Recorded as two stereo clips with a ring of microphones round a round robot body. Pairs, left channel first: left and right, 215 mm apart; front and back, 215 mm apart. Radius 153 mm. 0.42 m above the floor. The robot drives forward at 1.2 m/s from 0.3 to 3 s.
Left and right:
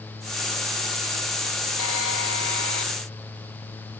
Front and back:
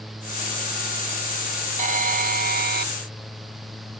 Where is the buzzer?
130° left; by 2.9 s 140° left.